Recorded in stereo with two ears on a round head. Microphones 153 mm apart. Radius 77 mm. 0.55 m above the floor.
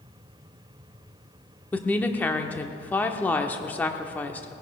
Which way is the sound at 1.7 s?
10° left (ahead or behind).